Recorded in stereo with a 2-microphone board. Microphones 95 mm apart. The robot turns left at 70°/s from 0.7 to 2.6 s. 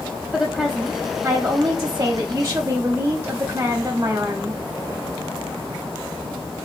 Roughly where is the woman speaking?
Ahead.